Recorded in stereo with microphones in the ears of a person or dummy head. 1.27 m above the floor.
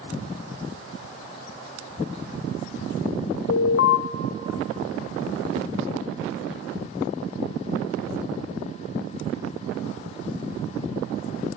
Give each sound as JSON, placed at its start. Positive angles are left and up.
{"t": 3.5, "sound": "an alarm", "side_deg": 60, "distance_m": 0.6}